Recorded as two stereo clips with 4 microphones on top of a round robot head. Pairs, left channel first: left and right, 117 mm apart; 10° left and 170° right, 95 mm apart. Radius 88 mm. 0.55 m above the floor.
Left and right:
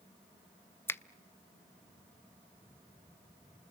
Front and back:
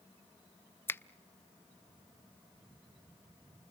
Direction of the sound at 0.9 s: 45° left.